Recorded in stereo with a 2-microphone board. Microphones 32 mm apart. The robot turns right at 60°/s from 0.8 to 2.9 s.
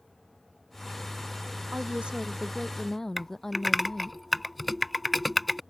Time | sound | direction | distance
1.7 | a woman speaking | 55° right | ?
3.2 | typing on a keyboard | centre (ahead or behind) | ?